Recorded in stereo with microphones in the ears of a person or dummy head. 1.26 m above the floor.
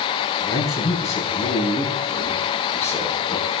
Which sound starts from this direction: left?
A man speaking, at 0.4 s.